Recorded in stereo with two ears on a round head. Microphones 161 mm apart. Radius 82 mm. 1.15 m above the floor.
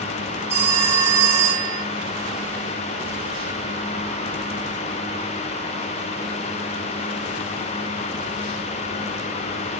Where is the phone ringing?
15° right (ahead or behind), 3.5 m.